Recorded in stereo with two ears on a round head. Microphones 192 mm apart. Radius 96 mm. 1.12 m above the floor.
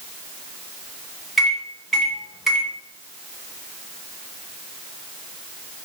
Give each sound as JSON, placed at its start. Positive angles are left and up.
{"t": 1.4, "sound": "a microwave", "side_deg": 0, "distance_m": 0.8}